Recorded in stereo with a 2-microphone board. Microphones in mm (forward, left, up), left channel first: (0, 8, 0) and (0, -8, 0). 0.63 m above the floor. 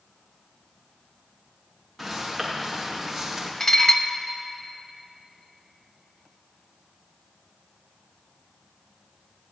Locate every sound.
2.0 s footsteps: 10° left (ahead or behind), 6 m; by 3.5 s centre (ahead or behind), 5.5 m
3.6 s dishes clattering: 30° left (ahead or behind), 0.9 m